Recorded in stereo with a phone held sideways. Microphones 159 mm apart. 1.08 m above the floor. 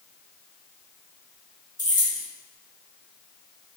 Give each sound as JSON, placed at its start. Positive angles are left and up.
{"t": 1.8, "sound": "keys jangling", "side_deg": -25, "distance_m": 1.0}